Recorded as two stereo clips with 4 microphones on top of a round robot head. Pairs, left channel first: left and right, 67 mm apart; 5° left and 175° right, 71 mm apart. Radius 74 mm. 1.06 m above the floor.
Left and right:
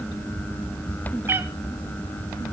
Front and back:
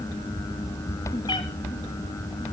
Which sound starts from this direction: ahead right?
A cat meowing, at 1.3 s.